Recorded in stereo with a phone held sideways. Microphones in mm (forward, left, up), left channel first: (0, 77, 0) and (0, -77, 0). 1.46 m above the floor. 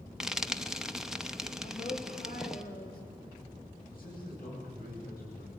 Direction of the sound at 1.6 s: 75° left (ahead or behind).